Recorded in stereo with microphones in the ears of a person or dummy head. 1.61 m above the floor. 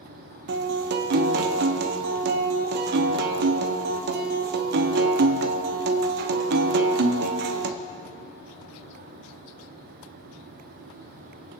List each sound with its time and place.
0.5 s a guitar: 55° right (ahead or behind), 1.0 m